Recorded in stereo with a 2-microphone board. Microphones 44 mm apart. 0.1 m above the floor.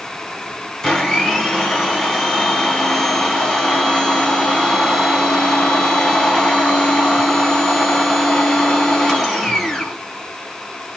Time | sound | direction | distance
0.8 | a blender | 10° left (ahead or behind) | 1.3 m